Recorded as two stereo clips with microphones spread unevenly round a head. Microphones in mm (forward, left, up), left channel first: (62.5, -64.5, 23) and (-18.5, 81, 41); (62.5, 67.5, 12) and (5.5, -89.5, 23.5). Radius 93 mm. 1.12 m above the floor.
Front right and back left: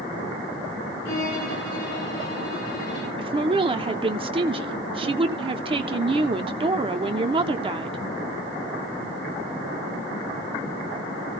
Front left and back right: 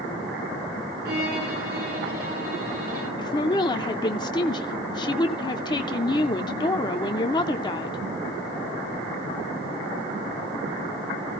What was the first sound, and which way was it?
A violin, 85° right.